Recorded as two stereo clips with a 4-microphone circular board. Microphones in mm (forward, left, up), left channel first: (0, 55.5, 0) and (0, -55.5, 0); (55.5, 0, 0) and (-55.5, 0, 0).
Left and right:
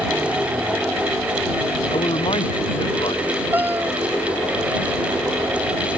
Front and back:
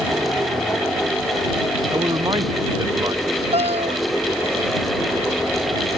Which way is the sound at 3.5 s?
165° right.